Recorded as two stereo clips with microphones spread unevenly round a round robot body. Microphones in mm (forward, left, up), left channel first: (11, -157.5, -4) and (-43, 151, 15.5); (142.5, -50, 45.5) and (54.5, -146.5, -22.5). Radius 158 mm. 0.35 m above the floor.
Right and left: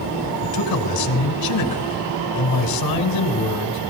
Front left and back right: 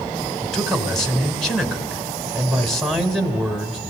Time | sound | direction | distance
0.4 | a man speaking | 50° right | 2 m